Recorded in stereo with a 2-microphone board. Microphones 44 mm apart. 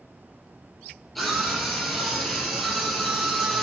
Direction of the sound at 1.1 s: 5° left (ahead or behind).